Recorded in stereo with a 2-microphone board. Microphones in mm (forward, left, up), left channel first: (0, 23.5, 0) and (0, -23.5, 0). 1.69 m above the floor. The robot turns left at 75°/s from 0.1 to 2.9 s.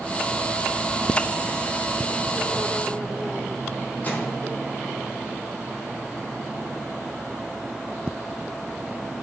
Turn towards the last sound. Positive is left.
turn(degrees=35)  # may be behind; listen again after turning